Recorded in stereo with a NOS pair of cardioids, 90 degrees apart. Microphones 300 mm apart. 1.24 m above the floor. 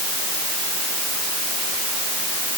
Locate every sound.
Only background noise.